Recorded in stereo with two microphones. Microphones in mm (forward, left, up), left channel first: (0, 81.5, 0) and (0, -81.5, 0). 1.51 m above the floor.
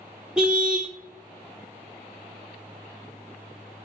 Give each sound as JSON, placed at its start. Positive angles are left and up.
{"t": 0.4, "sound": "a car horn", "side_deg": -5, "distance_m": 2.5}